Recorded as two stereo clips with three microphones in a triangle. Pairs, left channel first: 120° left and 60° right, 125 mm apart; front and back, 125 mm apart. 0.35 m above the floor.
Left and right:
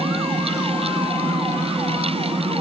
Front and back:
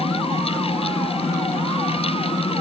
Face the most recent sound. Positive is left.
No sound to turn to.